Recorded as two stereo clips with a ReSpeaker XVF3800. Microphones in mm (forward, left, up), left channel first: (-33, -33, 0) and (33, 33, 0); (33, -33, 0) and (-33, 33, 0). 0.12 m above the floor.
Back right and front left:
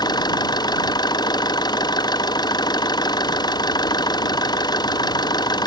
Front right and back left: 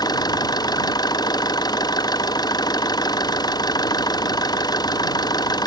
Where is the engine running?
90° right.